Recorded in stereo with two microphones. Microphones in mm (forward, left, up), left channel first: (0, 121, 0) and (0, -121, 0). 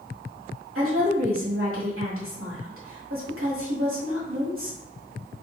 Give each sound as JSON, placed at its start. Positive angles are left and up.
{"t": 0.8, "sound": "a woman speaking", "side_deg": -60, "distance_m": 1.8}